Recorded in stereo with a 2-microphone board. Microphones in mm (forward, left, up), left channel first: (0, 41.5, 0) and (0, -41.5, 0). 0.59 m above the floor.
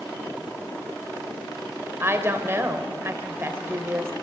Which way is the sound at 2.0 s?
30° right (ahead or behind).